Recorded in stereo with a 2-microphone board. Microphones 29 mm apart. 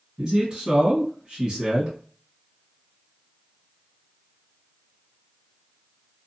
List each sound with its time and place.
0.2 s a man speaking: 30° right (ahead or behind), 1.6 m